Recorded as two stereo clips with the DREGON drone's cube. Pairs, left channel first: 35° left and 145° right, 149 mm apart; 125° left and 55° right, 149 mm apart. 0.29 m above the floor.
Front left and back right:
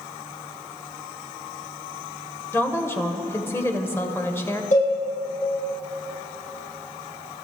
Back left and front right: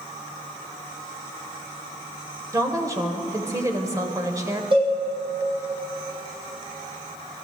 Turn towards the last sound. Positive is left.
turn(degrees=-5)